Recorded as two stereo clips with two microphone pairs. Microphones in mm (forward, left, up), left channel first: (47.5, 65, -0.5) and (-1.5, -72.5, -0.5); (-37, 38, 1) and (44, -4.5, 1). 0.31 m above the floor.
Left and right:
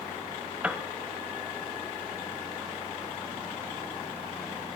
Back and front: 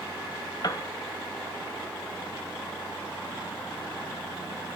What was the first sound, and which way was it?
A piano, 175° left.